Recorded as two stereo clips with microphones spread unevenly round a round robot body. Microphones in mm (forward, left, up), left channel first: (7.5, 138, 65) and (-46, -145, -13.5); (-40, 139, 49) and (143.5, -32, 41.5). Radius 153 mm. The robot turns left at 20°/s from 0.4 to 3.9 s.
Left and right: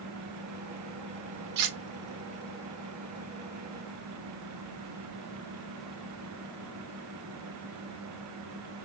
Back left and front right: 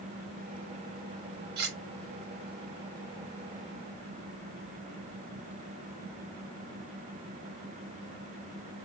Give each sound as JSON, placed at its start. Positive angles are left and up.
{"t": 1.6, "sound": "cutlery clinking", "azimuth_deg": -105, "distance_m": 0.9}